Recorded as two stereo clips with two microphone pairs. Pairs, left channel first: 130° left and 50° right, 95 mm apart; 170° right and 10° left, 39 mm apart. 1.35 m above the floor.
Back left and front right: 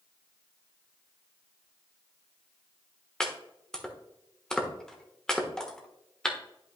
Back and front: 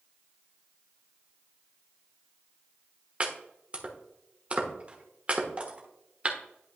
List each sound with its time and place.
3.2 s chopping: 50° left, 1.2 m